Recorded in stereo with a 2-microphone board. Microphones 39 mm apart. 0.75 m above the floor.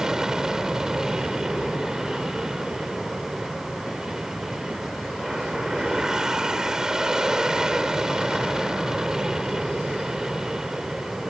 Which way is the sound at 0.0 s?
15° right (ahead or behind).